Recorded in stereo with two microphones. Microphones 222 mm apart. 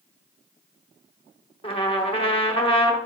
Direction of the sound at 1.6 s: 25° left (ahead or behind).